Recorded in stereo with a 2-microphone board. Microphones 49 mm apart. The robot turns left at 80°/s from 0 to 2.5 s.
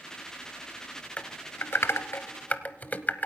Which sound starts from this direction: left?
Typing on a keyboard, at 1.2 s.